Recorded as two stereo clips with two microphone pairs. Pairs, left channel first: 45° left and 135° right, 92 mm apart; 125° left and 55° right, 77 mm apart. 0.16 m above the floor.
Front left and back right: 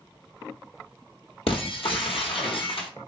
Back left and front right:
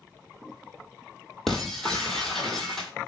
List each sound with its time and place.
1.5 s breaking glass: 40° left, 0.9 m